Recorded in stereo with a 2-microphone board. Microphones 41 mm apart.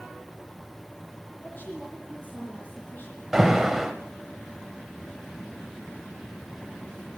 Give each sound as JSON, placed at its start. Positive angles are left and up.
{"t": 1.4, "sound": "a woman speaking", "side_deg": 55, "distance_m": 10.0}
{"t": 3.3, "sound": "an alarm", "side_deg": -10, "distance_m": 1.3}